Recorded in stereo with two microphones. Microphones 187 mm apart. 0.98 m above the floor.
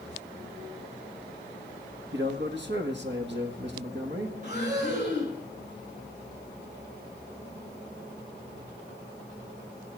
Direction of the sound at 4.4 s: 40° right (ahead or behind).